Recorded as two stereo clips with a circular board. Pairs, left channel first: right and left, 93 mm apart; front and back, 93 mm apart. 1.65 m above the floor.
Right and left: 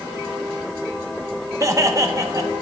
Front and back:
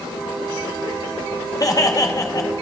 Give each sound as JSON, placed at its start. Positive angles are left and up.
{"t": 1.6, "sound": "laughter", "azimuth_deg": 45, "distance_m": 0.9}